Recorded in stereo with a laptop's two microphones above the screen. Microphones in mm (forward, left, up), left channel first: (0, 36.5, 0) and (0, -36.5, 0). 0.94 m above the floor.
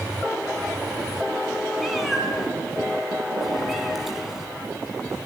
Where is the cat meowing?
Centre (ahead or behind), 3.5 m.